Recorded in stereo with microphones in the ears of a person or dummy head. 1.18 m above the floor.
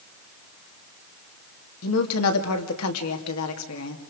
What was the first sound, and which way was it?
A woman speaking, 80° left.